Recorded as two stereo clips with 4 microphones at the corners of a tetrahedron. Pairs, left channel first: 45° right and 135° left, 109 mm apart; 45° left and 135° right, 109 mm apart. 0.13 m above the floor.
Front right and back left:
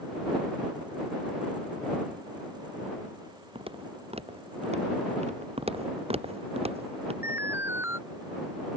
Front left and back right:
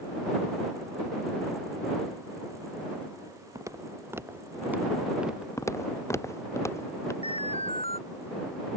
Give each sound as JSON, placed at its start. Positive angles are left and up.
{"t": 3.5, "sound": "footsteps", "azimuth_deg": 165}
{"t": 5.6, "sound": "footsteps", "azimuth_deg": 110}
{"t": 7.2, "sound": "an alarm", "azimuth_deg": 65}